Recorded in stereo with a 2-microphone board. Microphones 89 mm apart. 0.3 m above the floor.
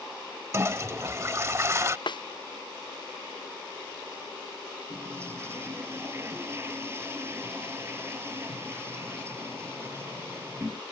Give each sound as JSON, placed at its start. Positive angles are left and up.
{"t": 0.5, "sound": "a toilet flushing", "side_deg": -35}
{"t": 2.1, "sound": "a snare drum", "side_deg": 60}
{"t": 4.9, "sound": "a toilet flushing", "side_deg": -30}